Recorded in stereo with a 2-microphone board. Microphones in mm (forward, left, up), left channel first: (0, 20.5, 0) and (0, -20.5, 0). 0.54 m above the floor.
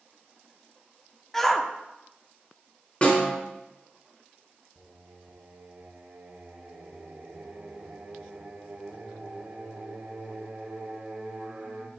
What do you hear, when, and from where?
1.3 s a shout: 10° left (ahead or behind), 0.7 m
3.0 s a snare drum: 30° left (ahead or behind), 2.5 m
4.8 s singing: 45° right (ahead or behind), 1.0 m